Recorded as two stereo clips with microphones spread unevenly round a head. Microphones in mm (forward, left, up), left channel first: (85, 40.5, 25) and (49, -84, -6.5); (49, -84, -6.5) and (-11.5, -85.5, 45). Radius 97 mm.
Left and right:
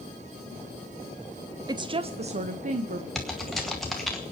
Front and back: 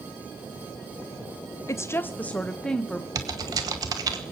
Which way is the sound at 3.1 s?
160° left.